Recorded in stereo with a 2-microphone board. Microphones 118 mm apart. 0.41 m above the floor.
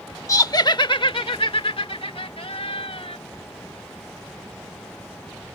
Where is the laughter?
30° left (ahead or behind); by 3.2 s 55° left (ahead or behind).